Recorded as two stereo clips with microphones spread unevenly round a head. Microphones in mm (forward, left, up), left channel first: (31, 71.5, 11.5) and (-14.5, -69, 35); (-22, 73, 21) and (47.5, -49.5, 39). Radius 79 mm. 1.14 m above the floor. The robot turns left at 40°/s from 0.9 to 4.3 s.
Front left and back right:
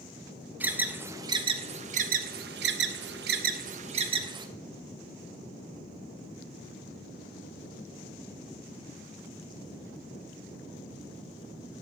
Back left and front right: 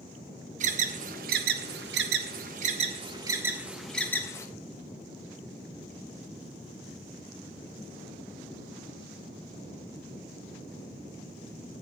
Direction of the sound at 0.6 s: 30° right.